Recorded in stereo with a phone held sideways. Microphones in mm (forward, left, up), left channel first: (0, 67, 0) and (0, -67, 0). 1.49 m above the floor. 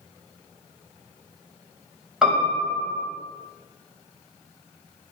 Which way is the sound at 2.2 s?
5° right (ahead or behind).